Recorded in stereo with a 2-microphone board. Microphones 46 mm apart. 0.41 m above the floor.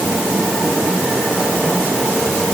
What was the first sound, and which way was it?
Only background noise.